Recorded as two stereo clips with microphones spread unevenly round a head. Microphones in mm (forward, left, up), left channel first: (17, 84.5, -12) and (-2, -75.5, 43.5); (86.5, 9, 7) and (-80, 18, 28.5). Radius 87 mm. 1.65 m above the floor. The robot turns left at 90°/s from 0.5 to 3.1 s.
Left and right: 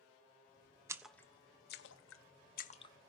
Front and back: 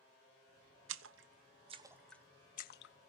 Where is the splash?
165° right, 0.8 m; by 2.9 s 10° left, 0.8 m.